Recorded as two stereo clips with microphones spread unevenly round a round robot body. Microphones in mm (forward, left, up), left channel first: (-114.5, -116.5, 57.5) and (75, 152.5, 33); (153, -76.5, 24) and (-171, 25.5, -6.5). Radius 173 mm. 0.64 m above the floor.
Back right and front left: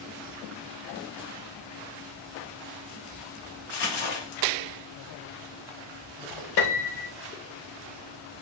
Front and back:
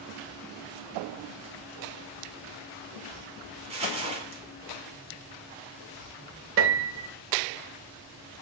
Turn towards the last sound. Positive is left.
turn(degrees=-145)